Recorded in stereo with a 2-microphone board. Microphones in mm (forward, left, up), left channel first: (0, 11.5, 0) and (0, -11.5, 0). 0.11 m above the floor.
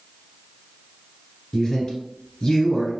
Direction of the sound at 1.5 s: 35° left (ahead or behind).